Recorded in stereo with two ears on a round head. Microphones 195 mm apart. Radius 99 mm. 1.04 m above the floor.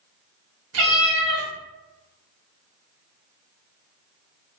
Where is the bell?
No bell in this recording.